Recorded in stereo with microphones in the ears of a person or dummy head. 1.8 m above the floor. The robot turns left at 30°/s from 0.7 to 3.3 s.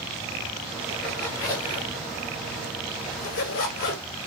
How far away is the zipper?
About 4 m.